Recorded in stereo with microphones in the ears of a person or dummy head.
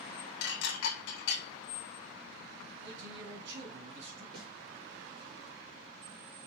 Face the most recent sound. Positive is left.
turn(degrees=-25)  # may be behind; listen again after turning